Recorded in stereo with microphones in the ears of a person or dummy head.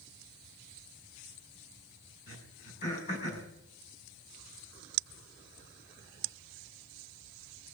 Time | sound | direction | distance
2.3 | throat clearing | 40° left (ahead or behind) | 5 m